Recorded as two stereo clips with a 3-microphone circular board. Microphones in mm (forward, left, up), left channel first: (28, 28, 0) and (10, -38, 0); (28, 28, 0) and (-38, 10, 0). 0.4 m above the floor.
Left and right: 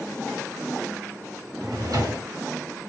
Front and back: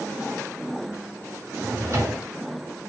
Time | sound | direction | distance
1.6 | a drawer | 125° right | 3 m